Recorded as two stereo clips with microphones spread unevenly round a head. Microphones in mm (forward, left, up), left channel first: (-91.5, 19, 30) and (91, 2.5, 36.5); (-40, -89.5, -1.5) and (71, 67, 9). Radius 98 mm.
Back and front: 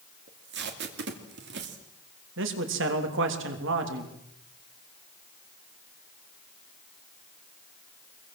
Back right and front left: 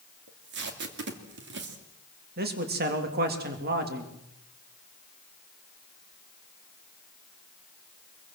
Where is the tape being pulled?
25° left, 2.5 m.